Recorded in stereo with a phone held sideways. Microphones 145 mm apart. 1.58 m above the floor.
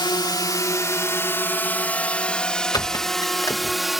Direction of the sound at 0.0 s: 30° left (ahead or behind).